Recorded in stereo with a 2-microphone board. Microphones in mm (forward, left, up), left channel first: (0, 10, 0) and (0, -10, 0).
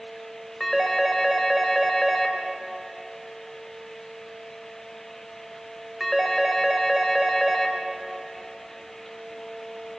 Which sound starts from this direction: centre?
A phone ringing, at 0.6 s.